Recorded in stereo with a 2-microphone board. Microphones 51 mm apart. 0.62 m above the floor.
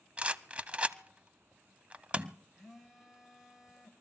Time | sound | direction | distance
0.2 | a rattle | 25° right (ahead or behind) | 0.6 m
2.6 | a phone buzzing | 10° right (ahead or behind) | 3 m